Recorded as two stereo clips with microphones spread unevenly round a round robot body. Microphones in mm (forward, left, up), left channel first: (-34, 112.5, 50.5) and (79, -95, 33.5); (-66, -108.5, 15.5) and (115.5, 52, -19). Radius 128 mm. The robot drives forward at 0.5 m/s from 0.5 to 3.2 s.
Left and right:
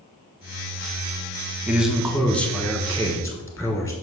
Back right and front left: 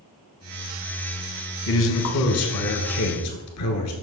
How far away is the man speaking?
About 0.9 m.